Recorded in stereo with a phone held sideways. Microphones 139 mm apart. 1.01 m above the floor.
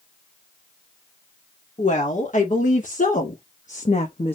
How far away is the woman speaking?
About 2.5 m.